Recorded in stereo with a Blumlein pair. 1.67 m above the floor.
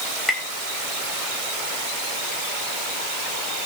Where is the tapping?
10° left, 2.5 m.